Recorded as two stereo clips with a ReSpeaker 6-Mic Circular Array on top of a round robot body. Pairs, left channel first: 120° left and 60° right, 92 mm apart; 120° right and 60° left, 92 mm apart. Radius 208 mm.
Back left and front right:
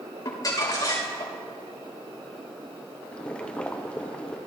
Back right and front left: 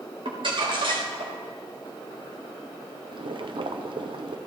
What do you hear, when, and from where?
0.2 s crumpling: 75° left, 3.5 m
3.1 s boiling: 45° left, 0.9 m